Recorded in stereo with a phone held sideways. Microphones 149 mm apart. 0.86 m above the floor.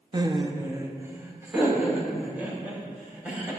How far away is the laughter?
About 0.7 m.